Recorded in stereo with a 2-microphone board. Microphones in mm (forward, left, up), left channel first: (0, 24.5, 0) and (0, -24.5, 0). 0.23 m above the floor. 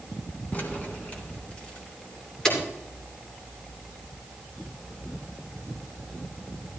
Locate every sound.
0.5 s keys jangling: 35° left (ahead or behind), 1.8 m; by 2.6 s 15° left (ahead or behind), 3 m